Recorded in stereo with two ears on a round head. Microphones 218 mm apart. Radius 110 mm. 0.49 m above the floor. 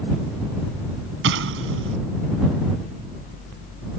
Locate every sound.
1.2 s an explosion: 55° right (ahead or behind)